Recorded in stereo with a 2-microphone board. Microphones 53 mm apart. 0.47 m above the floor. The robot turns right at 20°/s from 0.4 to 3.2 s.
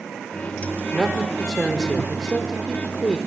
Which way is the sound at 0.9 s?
10° right.